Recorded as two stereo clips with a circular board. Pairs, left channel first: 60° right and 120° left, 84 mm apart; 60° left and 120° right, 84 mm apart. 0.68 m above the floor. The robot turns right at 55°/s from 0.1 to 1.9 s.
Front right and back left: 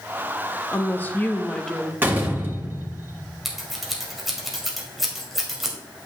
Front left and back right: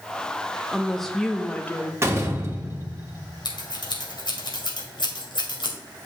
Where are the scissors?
30° left, 1.9 m.